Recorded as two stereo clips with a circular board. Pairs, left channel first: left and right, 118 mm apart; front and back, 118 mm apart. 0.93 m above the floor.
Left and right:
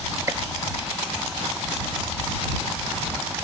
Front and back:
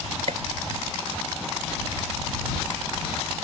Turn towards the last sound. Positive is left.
turn(degrees=-155)